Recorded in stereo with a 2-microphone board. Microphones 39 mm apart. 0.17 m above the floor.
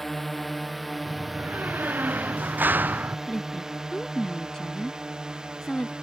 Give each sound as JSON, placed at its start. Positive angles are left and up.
{"t": 0.0, "sound": "a drone", "side_deg": 5}
{"t": 1.1, "sound": "a door slam", "side_deg": -55}
{"t": 3.3, "sound": "a woman speaking", "side_deg": 20}